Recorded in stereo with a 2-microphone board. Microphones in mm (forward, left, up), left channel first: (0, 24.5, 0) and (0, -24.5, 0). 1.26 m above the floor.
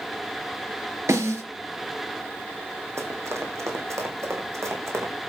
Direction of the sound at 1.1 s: 75° right (ahead or behind).